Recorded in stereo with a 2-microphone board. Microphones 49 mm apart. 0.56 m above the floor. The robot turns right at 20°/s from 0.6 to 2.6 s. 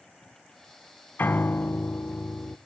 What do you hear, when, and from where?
1.2 s a piano: 45° left (ahead or behind), 0.6 m; by 2.6 s 55° left (ahead or behind), 0.6 m